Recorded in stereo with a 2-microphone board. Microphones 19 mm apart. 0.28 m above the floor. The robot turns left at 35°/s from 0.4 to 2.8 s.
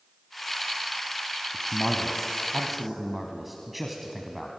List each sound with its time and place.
1.5 s a man speaking: 35° left, 1.8 m; by 4.6 s 10° right, 1.8 m